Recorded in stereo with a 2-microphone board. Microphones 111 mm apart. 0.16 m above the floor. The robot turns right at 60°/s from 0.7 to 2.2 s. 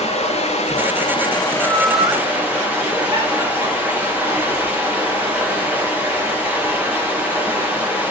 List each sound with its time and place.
0.0 s running water: 105° left, 3.5 m; by 8.1 s 165° right, 3.5 m
1.5 s laughter: 10° right (ahead or behind), 2 m; by 6.2 s 35° right (ahead or behind), 2 m